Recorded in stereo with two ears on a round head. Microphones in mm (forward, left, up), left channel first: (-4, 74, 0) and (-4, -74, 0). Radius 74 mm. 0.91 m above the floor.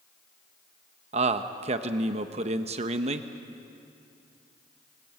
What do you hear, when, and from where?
1.1 s a man speaking: 40° right (ahead or behind), 0.9 m